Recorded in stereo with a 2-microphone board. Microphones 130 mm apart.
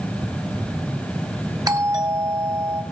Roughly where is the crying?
I don't hear crying.